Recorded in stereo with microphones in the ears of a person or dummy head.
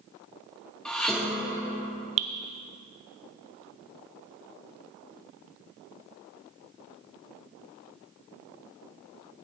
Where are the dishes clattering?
Centre (ahead or behind), 1.1 m.